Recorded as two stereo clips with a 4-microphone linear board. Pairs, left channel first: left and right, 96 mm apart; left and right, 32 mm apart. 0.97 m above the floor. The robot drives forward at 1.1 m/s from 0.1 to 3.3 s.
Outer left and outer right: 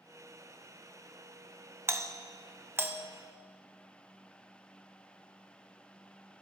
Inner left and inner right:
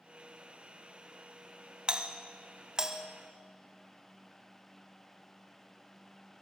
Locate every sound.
1.9 s a doorbell: 25° right (ahead or behind), 0.7 m; by 3.0 s 20° right (ahead or behind), 1.1 m